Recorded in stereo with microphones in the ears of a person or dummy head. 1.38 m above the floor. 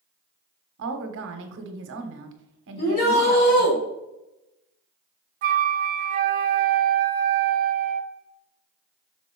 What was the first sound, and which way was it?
A woman speaking, 60° right (ahead or behind).